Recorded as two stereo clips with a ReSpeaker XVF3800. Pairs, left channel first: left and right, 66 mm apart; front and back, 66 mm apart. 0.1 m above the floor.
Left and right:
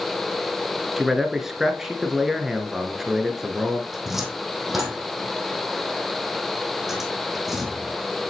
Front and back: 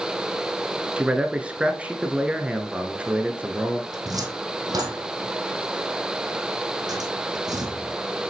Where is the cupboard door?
175° right, 1.9 m.